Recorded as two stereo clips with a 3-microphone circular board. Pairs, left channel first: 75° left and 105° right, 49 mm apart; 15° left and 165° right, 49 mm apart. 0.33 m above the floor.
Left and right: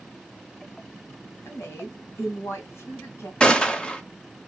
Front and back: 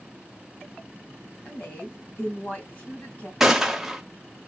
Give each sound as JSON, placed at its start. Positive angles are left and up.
{"t": 1.4, "sound": "a woman speaking", "azimuth_deg": 65, "distance_m": 2.5}
{"t": 3.4, "sound": "a gunshot", "azimuth_deg": 120, "distance_m": 0.7}